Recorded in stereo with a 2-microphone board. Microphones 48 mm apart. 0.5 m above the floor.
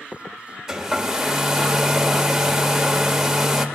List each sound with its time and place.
0.7 s a hair dryer: 5° right (ahead or behind), 1.8 m